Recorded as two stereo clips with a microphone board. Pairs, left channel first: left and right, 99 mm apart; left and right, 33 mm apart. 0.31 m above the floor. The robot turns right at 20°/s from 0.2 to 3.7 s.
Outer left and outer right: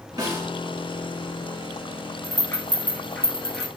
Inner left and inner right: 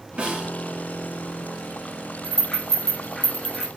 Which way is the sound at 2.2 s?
30° left (ahead or behind).